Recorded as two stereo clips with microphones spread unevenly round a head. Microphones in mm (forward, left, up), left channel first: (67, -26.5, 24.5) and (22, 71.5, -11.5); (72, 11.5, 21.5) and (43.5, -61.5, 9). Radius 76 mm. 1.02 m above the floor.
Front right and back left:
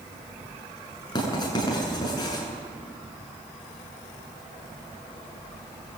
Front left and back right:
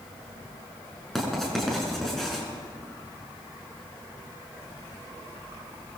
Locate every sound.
1.1 s writing: 15° right, 7.5 m